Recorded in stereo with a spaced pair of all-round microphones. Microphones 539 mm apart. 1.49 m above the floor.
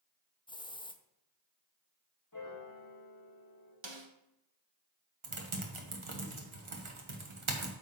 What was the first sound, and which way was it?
A hiss, 10° left (ahead or behind).